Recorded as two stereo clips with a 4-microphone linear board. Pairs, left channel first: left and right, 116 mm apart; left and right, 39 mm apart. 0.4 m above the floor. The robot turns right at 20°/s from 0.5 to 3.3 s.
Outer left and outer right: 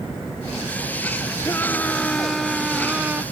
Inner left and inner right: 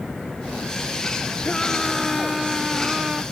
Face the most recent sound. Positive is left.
turn(degrees=-165)